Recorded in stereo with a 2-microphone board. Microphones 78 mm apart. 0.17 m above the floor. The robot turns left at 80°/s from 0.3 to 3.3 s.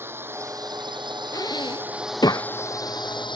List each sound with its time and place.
0.0 s a drone: 30° right; by 3.4 s 90° left
1.3 s breathing: 50° left (ahead or behind); by 2.5 s 40° left (ahead or behind)